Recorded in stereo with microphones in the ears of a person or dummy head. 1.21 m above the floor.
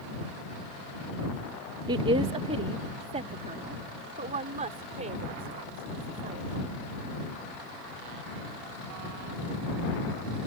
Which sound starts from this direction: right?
A woman speaking, at 1.9 s.